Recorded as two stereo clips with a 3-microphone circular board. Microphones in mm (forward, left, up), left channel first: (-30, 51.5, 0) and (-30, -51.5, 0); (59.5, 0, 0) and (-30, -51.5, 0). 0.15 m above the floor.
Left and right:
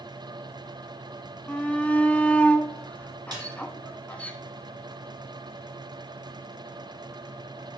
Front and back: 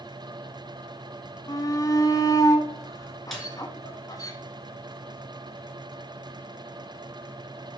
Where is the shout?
20° left, 1.2 m.